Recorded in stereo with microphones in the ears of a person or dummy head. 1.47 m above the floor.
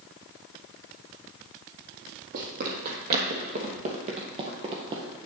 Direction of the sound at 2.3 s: 55° right (ahead or behind).